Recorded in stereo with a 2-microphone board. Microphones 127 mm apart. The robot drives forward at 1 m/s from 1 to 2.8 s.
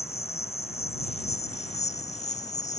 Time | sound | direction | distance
0.0 | an insect | 55° left (ahead or behind) | ?